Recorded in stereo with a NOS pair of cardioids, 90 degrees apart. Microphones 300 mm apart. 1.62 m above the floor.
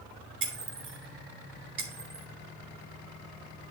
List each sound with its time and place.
0.4 s breaking glass: 45° right, 3 m